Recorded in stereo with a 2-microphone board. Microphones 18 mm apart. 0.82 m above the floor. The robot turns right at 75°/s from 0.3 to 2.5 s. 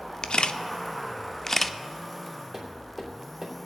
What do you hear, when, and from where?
0.2 s a camera shutter: 55° left (ahead or behind), 0.6 m; by 1.8 s 5° left (ahead or behind), 0.6 m
2.5 s tapping: 25° right (ahead or behind), 3 m